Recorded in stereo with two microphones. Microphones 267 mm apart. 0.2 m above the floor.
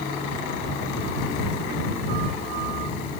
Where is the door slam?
I don't hear a door slam.